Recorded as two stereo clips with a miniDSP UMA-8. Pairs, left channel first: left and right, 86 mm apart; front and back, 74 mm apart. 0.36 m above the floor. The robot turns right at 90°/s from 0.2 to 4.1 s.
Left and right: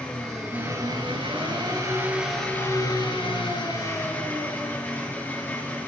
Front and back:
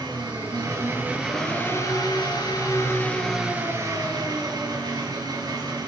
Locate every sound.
0.0 s an engine running: 170° left, 4 m; by 5.9 s 160° left, 4 m